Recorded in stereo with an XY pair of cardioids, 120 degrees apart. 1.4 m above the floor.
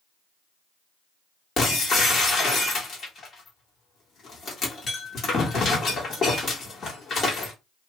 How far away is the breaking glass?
About 1.5 m.